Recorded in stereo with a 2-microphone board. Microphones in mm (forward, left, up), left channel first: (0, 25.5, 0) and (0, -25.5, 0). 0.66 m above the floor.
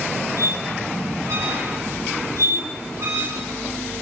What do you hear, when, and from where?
0.4 s a squeak: 65° right (ahead or behind), 3 m